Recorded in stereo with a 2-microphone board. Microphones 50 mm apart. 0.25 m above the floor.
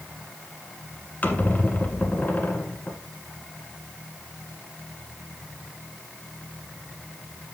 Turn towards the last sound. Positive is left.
turn(degrees=35)  # may be behind; listen again after turning